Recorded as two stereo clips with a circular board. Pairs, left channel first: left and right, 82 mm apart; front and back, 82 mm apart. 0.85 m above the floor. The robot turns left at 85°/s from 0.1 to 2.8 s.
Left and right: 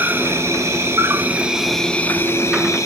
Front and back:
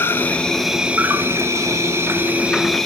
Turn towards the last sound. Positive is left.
turn(degrees=85)